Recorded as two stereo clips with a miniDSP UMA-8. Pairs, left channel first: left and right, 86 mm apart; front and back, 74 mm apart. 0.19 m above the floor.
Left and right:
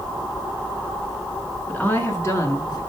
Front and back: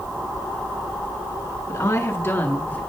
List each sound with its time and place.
1.7 s a woman speaking: 25° left, 2 m; by 2.8 s 60° left, 2.5 m